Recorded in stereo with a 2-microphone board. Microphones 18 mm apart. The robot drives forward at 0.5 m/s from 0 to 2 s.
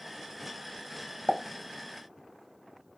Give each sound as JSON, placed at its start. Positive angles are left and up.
{"t": 1.3, "sound": "a pop", "side_deg": 50, "distance_m": 0.8}